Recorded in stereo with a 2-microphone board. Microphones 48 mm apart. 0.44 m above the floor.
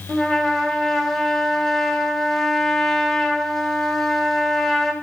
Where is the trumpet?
5° left (ahead or behind), 2.5 m.